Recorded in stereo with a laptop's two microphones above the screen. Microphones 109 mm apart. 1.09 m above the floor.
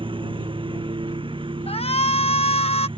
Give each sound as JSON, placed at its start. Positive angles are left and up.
{"t": 0.0, "sound": "a lawn mower", "side_deg": -50}
{"t": 1.7, "sound": "a shout", "side_deg": 65}